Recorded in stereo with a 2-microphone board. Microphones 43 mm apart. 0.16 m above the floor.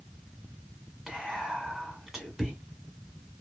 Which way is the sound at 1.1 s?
15° right (ahead or behind).